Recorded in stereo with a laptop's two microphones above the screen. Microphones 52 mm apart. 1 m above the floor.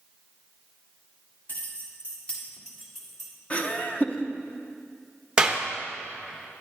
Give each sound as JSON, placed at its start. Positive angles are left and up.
{"t": 1.5, "sound": "keys jangling", "side_deg": 40, "distance_m": 1.4}
{"t": 3.5, "sound": "laughter", "side_deg": 30, "distance_m": 0.9}
{"t": 5.4, "sound": "a clap", "side_deg": -15, "distance_m": 0.7}